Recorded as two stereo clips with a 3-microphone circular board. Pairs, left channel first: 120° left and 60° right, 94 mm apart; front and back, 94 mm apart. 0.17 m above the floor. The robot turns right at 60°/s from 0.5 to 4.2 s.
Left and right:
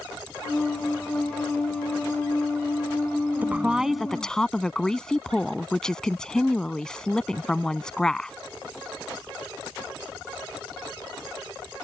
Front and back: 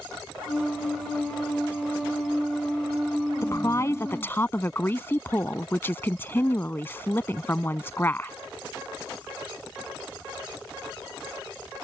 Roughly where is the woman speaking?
Ahead.